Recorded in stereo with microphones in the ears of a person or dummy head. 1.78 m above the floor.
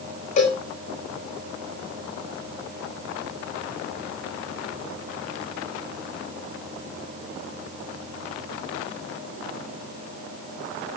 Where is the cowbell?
35° left (ahead or behind), 5 m.